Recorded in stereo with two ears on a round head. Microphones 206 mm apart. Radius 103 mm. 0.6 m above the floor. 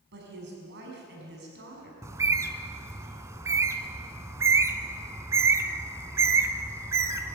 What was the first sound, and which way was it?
A woman speaking, 55° right (ahead or behind).